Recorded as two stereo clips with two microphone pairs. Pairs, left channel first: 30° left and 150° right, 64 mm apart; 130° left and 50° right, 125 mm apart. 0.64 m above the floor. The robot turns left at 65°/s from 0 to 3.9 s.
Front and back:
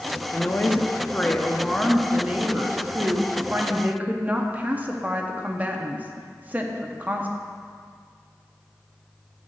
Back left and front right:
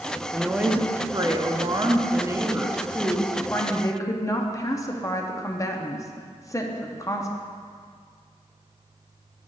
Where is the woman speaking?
40° left, 0.6 m; by 7.3 s 165° left, 0.6 m.